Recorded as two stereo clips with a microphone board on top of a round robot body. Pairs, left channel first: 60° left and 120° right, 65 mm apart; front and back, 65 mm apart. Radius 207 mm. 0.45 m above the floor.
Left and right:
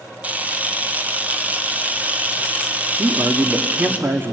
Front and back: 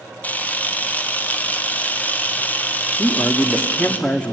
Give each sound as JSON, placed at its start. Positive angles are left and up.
{"t": 0.2, "sound": "a camera shutter", "azimuth_deg": -60, "distance_m": 1.9}
{"t": 3.0, "sound": "a man speaking", "azimuth_deg": -70, "distance_m": 1.6}